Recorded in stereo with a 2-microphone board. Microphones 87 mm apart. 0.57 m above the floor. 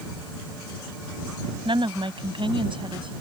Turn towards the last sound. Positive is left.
turn(degrees=-80)